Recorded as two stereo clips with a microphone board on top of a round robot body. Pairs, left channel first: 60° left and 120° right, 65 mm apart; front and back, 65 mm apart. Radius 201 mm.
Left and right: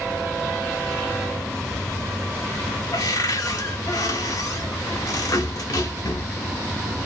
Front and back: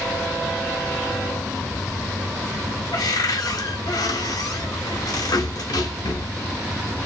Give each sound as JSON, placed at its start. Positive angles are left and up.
{"t": 2.9, "sound": "a cupboard door", "azimuth_deg": 25, "distance_m": 0.7}